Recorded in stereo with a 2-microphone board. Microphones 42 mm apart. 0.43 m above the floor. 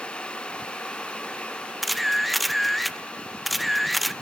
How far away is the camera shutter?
About 0.7 m.